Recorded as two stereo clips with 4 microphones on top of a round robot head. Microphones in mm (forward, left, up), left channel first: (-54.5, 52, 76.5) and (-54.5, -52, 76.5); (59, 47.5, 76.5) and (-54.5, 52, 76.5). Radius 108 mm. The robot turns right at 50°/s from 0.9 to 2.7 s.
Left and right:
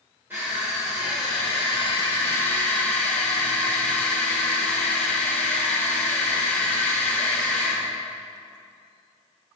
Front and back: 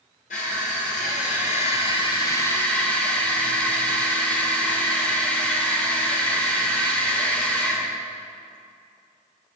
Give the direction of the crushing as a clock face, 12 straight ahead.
12 o'clock.